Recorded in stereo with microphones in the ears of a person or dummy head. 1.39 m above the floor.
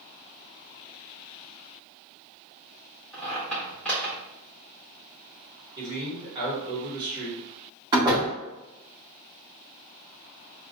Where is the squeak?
5° left (ahead or behind), 1.4 m.